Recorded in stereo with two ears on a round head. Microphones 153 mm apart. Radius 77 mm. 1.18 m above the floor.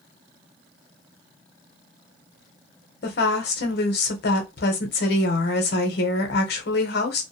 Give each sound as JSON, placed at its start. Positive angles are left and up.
{"t": 3.0, "sound": "a woman speaking", "side_deg": 65, "distance_m": 0.8}